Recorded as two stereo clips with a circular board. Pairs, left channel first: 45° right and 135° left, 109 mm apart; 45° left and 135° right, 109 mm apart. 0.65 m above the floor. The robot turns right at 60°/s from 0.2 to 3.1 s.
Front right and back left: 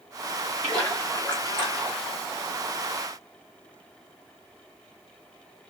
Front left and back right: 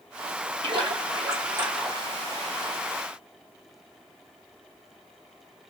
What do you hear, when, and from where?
0.6 s a splash: 130° right, 1.3 m; by 2.2 s 35° right, 1.3 m